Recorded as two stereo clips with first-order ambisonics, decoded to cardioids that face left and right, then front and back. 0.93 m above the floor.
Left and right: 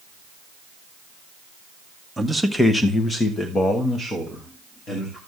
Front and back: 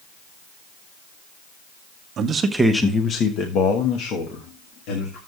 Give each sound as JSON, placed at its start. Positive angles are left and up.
{"t": 2.2, "sound": "a man speaking", "azimuth_deg": -170, "distance_m": 0.9}